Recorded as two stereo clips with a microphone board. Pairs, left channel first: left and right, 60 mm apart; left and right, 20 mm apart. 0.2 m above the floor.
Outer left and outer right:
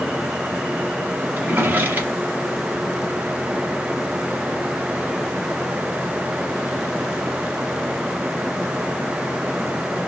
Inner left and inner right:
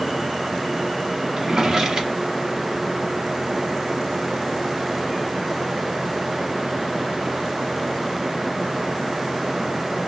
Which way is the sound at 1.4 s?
30° right (ahead or behind).